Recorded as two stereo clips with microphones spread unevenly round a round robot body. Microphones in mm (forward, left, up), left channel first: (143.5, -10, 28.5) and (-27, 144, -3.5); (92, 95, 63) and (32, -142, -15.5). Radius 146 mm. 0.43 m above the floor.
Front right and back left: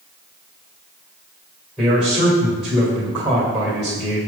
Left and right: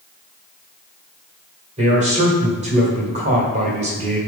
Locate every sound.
1.8 s a man speaking: 140° right, 1.7 m